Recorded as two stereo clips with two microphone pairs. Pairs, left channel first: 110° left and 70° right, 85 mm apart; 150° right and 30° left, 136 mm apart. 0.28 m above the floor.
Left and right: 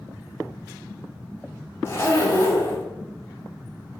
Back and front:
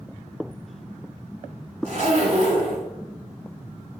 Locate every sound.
1.9 s a zipper: 60° left, 1.0 m